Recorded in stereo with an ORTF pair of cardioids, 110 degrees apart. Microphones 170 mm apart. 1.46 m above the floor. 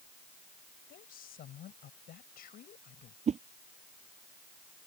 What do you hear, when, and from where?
0.9 s a woman speaking: 60° left
3.3 s a whoosh: 40° right